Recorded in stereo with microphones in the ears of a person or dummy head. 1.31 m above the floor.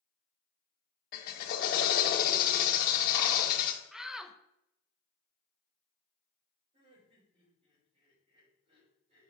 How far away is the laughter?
About 5 m.